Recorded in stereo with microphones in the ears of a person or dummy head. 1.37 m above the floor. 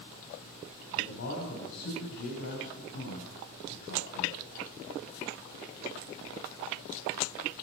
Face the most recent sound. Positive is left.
turn(degrees=70)  # may be behind; listen again after turning